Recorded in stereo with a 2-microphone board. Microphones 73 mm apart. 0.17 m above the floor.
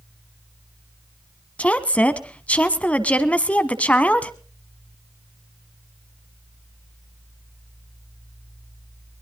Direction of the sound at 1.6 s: 20° left (ahead or behind).